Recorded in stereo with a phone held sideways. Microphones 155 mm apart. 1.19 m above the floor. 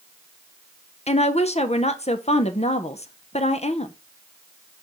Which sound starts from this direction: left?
A woman speaking, at 1.1 s.